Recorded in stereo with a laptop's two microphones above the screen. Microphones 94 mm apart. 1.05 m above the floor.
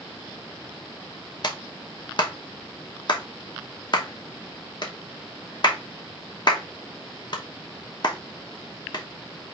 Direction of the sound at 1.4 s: 50° left (ahead or behind).